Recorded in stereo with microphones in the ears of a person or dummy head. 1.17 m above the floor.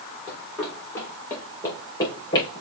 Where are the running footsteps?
5° left (ahead or behind), 5.5 m; by 2.6 s 20° left (ahead or behind), 5.5 m.